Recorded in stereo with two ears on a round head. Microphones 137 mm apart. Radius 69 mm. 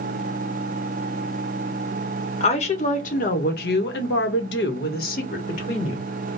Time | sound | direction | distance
2.4 | a woman speaking | 40° left (ahead or behind) | 1.4 m